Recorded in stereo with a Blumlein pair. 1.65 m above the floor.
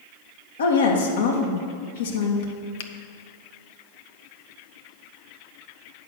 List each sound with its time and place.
0.6 s a woman speaking: 65° left, 1.8 m
2.8 s a finger snap: 55° left, 0.7 m